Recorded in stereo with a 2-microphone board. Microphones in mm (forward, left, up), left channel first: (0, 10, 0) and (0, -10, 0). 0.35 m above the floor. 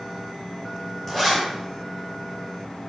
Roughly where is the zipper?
Left.